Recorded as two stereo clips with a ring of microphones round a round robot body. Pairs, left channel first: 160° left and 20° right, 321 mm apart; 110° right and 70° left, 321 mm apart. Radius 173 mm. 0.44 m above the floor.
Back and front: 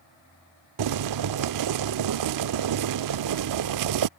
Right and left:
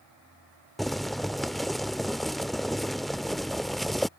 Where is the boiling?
25° right.